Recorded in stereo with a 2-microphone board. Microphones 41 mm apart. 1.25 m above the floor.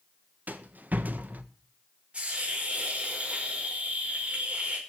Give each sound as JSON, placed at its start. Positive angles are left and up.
{"t": 0.5, "sound": "a rattle", "side_deg": -45, "distance_m": 1.4}
{"t": 2.1, "sound": "a hiss", "side_deg": -30, "distance_m": 5.5}